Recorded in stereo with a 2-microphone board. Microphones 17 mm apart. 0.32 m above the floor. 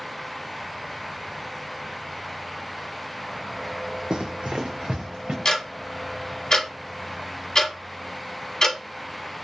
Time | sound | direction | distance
4.1 | running footsteps | 60° right (ahead or behind) | 0.6 m
5.5 | ticking | 45° left (ahead or behind) | 1.0 m